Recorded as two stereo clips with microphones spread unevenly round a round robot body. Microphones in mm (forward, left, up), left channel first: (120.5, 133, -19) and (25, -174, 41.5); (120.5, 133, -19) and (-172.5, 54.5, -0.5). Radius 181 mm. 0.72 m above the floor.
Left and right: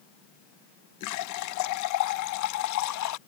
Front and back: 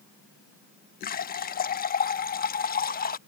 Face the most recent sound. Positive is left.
turn(degrees=70)